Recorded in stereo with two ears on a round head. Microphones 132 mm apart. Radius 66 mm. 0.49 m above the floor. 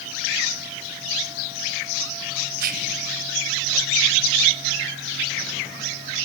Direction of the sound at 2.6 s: 65° right (ahead or behind).